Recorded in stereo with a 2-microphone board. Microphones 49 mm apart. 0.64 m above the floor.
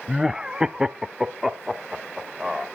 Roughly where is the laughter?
Centre.